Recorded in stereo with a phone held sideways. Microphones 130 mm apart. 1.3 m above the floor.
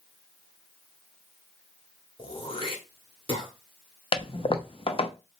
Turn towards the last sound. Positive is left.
turn(degrees=45)  # may be behind; listen again after turning